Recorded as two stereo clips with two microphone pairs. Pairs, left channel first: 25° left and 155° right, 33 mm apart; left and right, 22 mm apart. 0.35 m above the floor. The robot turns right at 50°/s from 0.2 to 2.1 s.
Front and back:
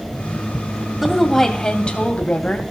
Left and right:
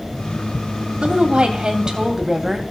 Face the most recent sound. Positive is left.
turn(degrees=-20)